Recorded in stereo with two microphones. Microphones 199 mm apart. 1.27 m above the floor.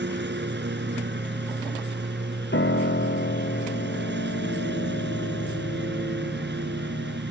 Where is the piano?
65° left (ahead or behind).